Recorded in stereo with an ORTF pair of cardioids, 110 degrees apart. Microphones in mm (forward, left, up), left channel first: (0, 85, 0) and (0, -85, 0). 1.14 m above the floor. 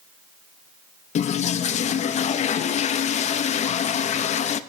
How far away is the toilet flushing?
About 0.6 m.